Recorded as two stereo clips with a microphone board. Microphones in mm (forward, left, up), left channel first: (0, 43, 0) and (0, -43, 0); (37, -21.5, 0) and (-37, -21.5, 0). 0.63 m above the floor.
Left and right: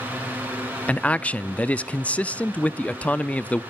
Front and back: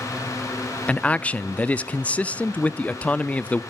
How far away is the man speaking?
About 0.5 m.